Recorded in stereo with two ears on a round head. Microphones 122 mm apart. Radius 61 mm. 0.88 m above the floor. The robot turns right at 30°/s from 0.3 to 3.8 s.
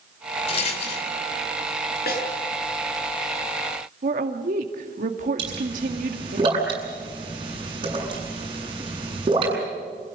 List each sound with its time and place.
0.5 s a rattle: 45° left (ahead or behind), 2.5 m; by 1.1 s 65° left (ahead or behind), 2.5 m
2.1 s a snare drum: 75° left (ahead or behind), 7.5 m; by 2.3 s 80° left, 7.5 m
4.0 s a woman speaking: 65° right (ahead or behind), 2 m
5.4 s a pop: 35° right (ahead or behind), 8 m